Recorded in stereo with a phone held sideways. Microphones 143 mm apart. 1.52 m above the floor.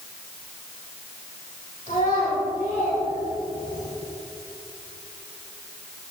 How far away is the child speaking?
About 3.5 m.